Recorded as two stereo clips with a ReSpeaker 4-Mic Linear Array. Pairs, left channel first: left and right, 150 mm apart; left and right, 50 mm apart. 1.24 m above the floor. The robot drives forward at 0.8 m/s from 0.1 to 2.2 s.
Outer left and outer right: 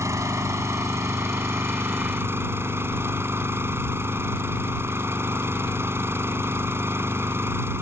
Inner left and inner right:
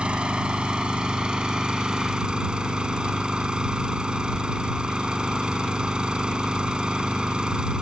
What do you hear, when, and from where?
0.0 s an engine running: 20° right (ahead or behind); by 7.8 s 15° right (ahead or behind)